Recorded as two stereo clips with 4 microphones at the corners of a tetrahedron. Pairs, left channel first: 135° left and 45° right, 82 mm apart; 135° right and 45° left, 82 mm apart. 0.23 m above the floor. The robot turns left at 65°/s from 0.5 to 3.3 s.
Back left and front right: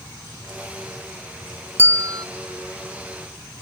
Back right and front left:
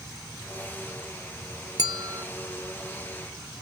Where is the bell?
15° left; by 2.3 s 15° right.